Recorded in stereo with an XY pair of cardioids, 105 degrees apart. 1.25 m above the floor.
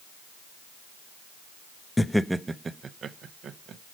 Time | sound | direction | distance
2.0 | laughter | 15° left | 0.5 m